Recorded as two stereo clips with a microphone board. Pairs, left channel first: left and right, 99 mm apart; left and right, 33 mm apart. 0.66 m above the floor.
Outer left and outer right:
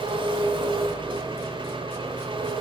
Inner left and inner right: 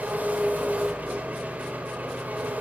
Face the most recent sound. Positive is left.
turn(degrees=-55)  # may be behind; listen again after turning